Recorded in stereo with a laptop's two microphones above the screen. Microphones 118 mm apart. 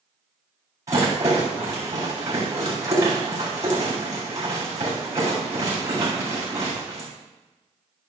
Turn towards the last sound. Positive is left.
turn(degrees=-30)  # may be behind; listen again after turning